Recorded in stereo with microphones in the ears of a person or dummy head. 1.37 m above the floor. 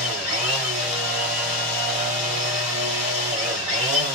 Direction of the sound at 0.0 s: 45° right (ahead or behind).